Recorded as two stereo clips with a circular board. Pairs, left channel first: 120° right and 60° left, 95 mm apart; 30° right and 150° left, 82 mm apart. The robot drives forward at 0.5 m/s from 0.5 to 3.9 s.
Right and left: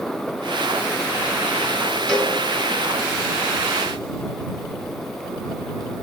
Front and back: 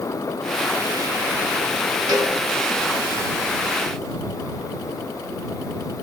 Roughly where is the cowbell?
Behind.